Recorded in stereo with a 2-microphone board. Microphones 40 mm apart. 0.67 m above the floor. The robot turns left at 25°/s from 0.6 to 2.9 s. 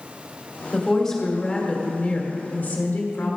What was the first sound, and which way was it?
A woman speaking, straight behind.